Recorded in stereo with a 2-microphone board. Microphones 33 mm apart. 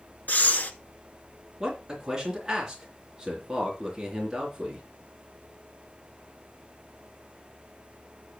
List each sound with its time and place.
0.3 s breathing: 65° left (ahead or behind), 0.9 m
1.6 s a man speaking: 15° right (ahead or behind), 3.5 m